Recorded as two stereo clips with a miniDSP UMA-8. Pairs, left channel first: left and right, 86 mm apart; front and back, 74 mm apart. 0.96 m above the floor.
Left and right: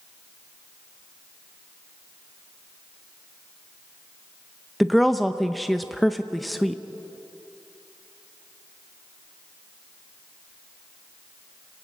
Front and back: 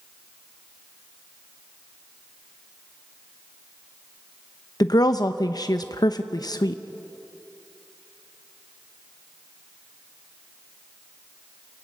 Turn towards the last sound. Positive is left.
turn(degrees=0)